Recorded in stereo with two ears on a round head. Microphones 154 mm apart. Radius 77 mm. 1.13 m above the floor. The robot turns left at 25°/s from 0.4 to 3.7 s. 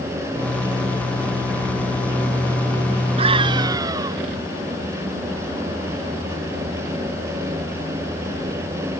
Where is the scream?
35° right (ahead or behind); by 4.2 s 20° right (ahead or behind).